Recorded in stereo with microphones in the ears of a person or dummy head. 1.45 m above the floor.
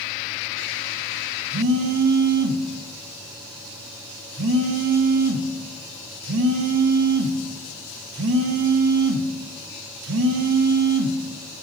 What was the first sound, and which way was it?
A phone buzzing, 70° right (ahead or behind).